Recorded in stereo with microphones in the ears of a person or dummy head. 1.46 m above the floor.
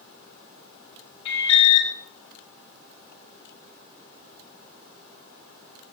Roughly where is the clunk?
I don't hear a clunk.